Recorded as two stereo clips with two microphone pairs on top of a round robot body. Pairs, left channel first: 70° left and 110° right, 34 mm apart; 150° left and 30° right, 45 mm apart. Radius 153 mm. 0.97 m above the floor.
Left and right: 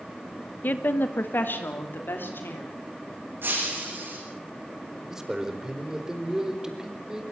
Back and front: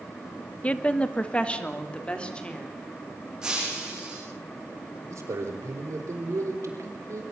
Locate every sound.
0.6 s a woman speaking: 90° left, 1.6 m; by 2.7 s 80° left, 4.5 m
3.4 s breaking glass: 105° right, 9 m
5.1 s a man speaking: 40° right, 4 m